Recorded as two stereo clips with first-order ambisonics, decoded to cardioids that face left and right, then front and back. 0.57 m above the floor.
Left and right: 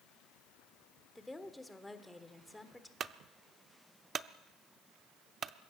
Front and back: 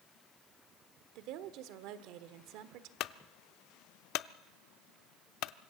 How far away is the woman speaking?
About 1.4 m.